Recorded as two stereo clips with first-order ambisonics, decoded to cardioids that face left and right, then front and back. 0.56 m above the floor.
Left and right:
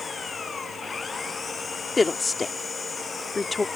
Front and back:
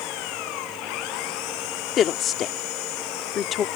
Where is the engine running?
15° left.